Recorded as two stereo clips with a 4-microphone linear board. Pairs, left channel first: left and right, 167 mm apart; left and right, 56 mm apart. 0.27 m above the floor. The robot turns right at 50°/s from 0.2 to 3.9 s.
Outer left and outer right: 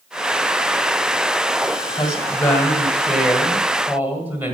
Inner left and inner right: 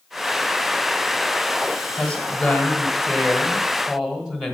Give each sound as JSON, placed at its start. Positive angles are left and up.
{"t": 2.0, "sound": "a woman speaking", "side_deg": 20, "distance_m": 1.6}